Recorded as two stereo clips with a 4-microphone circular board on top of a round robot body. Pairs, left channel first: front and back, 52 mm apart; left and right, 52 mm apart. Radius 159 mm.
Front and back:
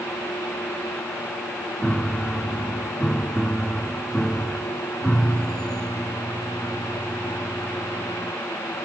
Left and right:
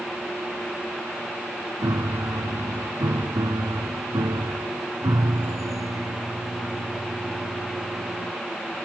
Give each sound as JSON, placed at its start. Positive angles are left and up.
{"t": 1.8, "sound": "a piano", "azimuth_deg": -80}